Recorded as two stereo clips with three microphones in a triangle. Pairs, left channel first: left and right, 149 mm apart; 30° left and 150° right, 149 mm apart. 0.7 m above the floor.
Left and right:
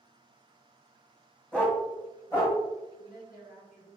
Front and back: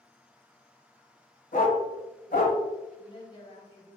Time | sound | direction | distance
1.5 | a dog barking | 5° left | 1.1 m
3.0 | a woman speaking | 85° left | 1.9 m